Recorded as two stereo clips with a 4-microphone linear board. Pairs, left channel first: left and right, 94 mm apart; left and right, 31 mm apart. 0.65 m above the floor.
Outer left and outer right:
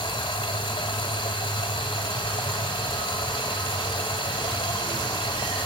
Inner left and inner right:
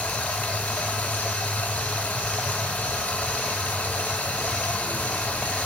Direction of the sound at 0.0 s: 65° left (ahead or behind).